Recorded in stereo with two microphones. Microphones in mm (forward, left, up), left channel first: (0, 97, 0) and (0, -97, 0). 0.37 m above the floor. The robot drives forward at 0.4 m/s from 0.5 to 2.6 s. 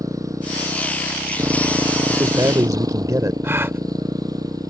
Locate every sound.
0.0 s a motorcycle: 15° right (ahead or behind); by 4.7 s 20° right (ahead or behind)
2.1 s a man speaking: 20° right (ahead or behind); by 3.3 s 15° right (ahead or behind)
3.4 s a gasp: 10° right (ahead or behind)